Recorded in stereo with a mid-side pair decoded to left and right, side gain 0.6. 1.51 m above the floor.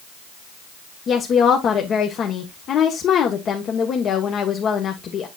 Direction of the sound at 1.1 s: 45° left.